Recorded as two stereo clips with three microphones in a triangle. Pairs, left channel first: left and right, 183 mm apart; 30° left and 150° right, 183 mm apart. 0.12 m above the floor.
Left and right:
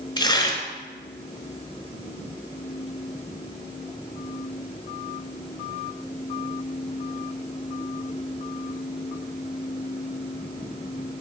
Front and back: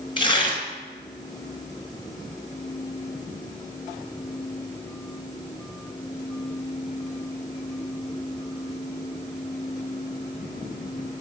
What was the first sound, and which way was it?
Tearing paper, 55° left.